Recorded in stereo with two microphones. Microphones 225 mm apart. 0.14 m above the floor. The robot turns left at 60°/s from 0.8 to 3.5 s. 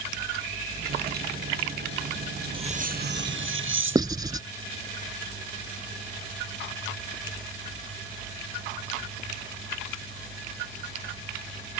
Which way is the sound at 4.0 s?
20° right (ahead or behind).